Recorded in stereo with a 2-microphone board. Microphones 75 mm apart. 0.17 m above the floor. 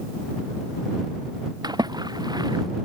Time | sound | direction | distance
1.6 | a splash | 65° right (ahead or behind) | ?